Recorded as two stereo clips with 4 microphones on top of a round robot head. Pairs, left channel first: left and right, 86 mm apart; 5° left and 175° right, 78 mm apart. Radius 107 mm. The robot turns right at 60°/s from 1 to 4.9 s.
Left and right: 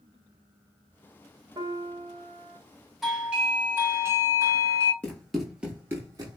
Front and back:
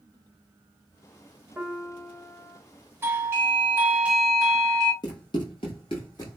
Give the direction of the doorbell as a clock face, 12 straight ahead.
6 o'clock.